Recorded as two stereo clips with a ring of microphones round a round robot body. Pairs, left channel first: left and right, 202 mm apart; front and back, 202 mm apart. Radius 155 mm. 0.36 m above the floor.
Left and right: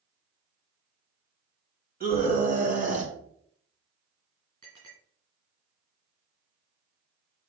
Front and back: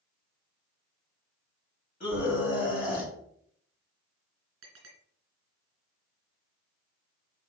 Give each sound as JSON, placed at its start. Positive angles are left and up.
{"t": 2.0, "sound": "a scream", "azimuth_deg": -50, "distance_m": 3.0}
{"t": 4.6, "sound": "a clink", "azimuth_deg": -160, "distance_m": 3.0}